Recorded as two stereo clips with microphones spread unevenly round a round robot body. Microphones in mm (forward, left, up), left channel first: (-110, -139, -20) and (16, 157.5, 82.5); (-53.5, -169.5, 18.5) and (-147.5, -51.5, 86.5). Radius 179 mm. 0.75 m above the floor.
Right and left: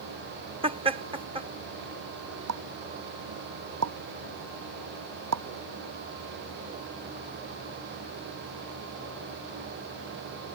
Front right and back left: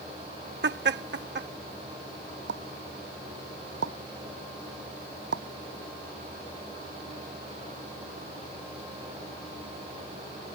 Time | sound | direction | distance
0.6 | laughter | 145° left | ?
2.5 | a pop | 110° left | ?